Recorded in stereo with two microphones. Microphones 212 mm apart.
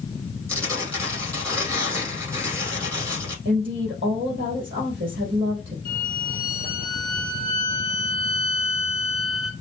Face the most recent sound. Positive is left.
turn(degrees=-30)  # may be behind; listen again after turning